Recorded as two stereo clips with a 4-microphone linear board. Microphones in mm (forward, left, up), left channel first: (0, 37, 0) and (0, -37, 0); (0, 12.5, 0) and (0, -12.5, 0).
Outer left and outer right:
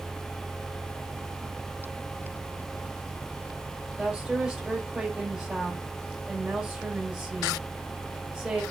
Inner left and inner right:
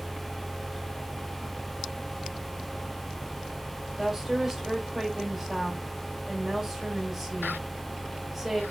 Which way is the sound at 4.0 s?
5° right (ahead or behind).